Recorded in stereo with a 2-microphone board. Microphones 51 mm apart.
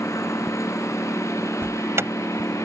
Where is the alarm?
60° right (ahead or behind).